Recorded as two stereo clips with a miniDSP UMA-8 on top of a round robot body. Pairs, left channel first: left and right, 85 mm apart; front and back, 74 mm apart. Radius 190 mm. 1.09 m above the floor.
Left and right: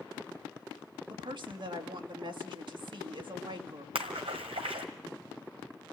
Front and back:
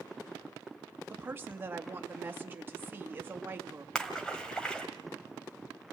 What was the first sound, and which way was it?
A woman speaking, 115° right.